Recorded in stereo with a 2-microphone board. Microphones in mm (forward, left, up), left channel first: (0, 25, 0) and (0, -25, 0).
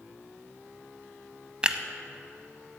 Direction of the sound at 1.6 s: 20° right (ahead or behind).